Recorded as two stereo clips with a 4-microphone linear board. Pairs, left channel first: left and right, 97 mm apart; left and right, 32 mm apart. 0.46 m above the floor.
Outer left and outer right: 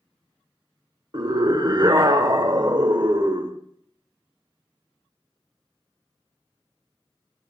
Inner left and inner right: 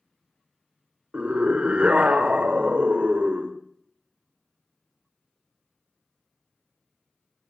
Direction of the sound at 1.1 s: 50° right (ahead or behind).